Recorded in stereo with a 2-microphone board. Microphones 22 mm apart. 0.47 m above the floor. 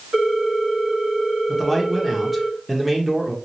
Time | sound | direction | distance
0.1 | a ringtone | 65° right (ahead or behind) | 1.2 m
1.5 | a man speaking | 10° right (ahead or behind) | 0.8 m